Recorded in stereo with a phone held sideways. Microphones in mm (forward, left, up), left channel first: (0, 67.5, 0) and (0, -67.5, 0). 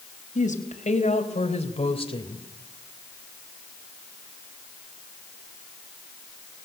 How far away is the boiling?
No boiling in this recording.